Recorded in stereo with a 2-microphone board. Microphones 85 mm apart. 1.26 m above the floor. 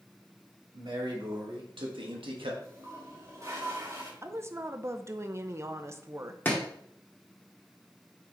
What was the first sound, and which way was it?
A man speaking, 65° right (ahead or behind).